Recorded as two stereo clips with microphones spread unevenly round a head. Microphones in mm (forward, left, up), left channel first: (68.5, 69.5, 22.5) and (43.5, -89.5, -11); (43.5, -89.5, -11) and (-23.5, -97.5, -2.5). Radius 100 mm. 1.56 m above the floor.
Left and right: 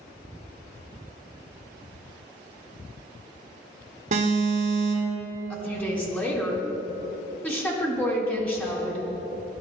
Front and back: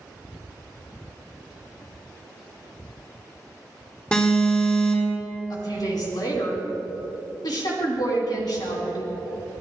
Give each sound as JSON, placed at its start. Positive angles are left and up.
{"t": 4.1, "sound": "an alarm", "azimuth_deg": -65, "distance_m": 4.5}
{"t": 5.5, "sound": "a woman speaking", "azimuth_deg": 0, "distance_m": 4.5}